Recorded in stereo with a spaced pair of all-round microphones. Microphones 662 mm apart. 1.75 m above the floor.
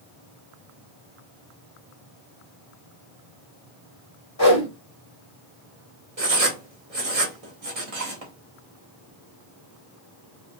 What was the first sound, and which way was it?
A whoosh, 25° left (ahead or behind).